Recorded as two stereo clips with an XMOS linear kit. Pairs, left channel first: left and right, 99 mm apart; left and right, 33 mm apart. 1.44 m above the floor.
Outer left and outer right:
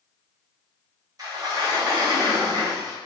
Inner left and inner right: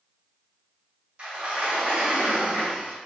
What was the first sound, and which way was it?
A sliding door, 40° right (ahead or behind).